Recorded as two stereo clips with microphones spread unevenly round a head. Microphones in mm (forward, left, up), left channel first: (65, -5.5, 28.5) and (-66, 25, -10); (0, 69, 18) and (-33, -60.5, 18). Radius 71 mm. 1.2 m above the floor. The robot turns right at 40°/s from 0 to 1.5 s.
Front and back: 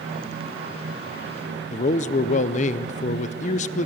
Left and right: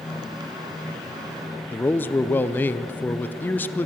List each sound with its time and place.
1.7 s a man speaking: 5° left, 0.7 m